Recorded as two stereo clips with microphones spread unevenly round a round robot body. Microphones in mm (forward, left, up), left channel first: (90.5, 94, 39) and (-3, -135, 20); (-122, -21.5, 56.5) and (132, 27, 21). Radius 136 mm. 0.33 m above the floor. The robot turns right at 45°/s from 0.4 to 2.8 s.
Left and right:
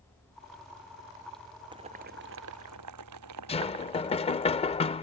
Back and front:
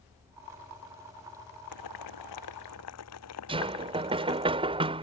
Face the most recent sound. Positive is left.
turn(degrees=20)